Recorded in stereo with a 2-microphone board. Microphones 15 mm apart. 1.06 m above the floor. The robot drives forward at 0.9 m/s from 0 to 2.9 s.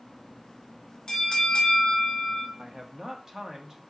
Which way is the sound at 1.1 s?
45° left (ahead or behind).